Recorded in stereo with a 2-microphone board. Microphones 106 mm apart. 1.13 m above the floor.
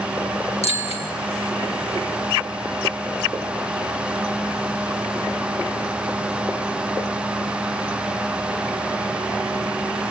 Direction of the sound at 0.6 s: 90° left.